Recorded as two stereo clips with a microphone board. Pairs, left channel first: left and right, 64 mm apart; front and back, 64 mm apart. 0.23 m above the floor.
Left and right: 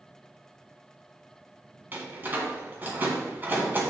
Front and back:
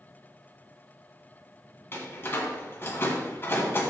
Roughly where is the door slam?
Ahead right.